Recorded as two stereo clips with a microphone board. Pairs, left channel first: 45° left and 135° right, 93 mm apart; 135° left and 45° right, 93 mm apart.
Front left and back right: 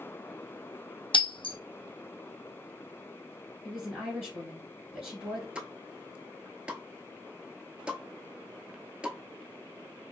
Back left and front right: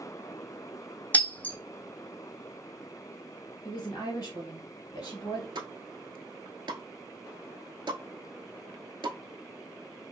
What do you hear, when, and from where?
1.1 s breaking glass: 60° left, 0.8 m
3.6 s a woman speaking: 145° left, 2 m
5.5 s a pop: 60° right, 0.6 m